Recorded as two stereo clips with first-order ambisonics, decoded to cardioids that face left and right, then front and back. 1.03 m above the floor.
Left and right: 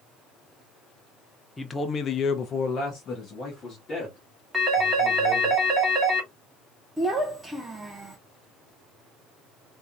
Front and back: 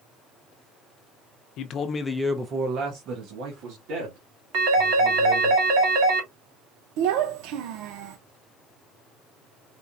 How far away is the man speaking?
About 0.7 m.